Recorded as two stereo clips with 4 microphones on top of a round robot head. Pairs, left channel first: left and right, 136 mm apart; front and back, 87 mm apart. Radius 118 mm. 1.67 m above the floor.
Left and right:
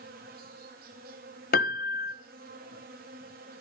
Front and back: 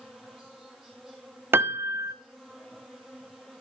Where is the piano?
120° left, 0.6 m.